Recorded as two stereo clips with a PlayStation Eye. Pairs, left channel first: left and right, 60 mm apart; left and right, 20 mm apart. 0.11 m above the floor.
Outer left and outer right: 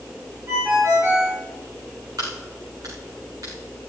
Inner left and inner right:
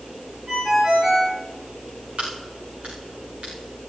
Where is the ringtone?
40° right (ahead or behind), 7 m.